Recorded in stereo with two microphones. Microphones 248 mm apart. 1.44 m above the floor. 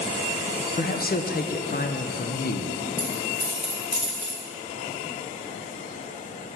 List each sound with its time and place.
0.8 s a man speaking: 40° left (ahead or behind), 0.5 m
3.0 s a dropped coin: 40° left (ahead or behind), 2 m